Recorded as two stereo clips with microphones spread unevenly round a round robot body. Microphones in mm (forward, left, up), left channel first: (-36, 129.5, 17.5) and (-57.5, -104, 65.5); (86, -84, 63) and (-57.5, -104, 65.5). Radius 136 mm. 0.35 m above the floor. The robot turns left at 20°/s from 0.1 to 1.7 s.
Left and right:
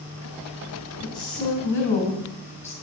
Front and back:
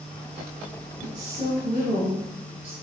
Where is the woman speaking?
150° left, 3 m; by 2.7 s 135° left, 3 m.